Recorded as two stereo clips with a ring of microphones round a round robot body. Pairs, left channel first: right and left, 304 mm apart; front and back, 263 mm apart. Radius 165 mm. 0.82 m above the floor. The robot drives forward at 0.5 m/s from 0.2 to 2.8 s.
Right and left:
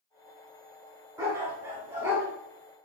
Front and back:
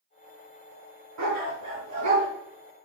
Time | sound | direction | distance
1.2 | a dog barking | 170° left | 4 m